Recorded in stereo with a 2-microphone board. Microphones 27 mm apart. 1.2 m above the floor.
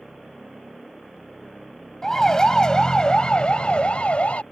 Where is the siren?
20° left (ahead or behind); by 4.4 s 55° left (ahead or behind).